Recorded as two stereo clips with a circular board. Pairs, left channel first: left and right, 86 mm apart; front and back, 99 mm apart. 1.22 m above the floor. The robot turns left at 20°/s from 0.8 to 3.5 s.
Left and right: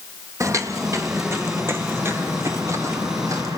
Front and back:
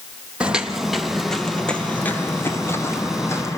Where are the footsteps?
105° right, 1.5 m; by 3.6 s 55° right, 1.9 m.